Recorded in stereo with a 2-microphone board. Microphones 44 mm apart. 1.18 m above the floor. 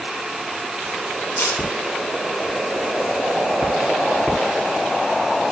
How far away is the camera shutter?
About 9 m.